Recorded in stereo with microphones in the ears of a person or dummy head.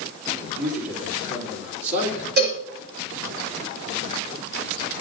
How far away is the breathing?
No breathing in this recording.